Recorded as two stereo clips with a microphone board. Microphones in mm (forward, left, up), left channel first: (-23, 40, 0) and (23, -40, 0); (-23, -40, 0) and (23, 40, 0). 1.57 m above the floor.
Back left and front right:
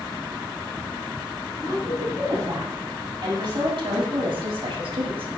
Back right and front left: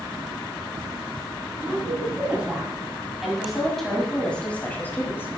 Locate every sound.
1.6 s a woman speaking: 10° right, 3.5 m; by 5.3 s 55° right, 2.5 m